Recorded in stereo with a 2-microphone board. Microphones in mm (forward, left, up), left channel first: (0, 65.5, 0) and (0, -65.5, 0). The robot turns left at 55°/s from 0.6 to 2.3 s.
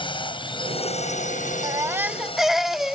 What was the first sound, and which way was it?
A drone, 40° left (ahead or behind).